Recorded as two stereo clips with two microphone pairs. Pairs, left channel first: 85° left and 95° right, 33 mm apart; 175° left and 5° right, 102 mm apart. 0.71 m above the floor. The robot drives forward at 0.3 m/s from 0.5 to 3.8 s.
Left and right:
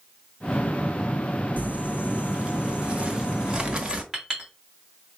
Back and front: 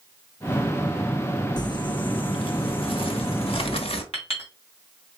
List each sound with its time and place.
1.6 s crumpling: 135° right, 0.5 m; by 4.0 s 160° right, 1.1 m
4.1 s a clink: 170° right, 2.5 m